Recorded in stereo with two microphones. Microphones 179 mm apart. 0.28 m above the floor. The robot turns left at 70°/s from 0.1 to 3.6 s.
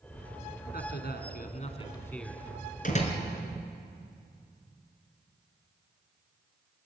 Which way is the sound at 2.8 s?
50° left (ahead or behind).